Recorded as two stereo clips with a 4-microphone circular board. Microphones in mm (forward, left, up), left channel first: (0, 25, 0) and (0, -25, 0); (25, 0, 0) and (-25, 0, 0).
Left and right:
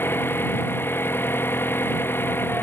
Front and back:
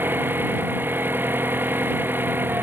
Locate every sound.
0.0 s an engine running: 130° left